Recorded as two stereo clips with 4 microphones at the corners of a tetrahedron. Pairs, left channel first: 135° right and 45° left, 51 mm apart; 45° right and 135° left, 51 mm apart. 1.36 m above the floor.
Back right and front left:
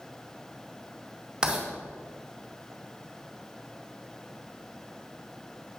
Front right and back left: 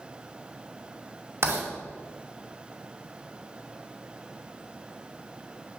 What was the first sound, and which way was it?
Writing, 115° left.